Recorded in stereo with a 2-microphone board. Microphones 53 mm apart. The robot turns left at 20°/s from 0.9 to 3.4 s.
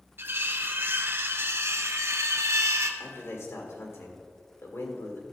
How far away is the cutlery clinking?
About 0.8 m.